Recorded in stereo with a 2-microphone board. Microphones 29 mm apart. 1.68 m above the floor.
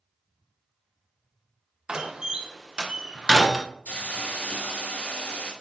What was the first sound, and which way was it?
A door slam, 30° right (ahead or behind).